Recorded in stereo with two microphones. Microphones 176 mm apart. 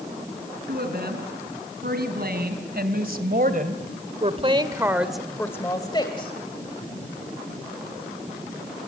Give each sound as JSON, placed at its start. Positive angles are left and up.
{"t": 0.7, "sound": "a woman speaking", "side_deg": -70, "distance_m": 5.0}